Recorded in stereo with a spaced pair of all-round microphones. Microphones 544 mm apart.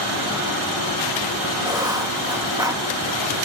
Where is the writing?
5° right (ahead or behind), 1.9 m.